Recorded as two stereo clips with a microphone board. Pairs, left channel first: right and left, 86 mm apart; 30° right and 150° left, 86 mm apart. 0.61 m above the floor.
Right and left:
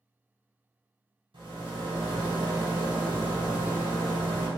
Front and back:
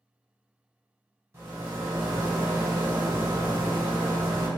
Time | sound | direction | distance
1.3 | a rattle | 95° left | 1.4 m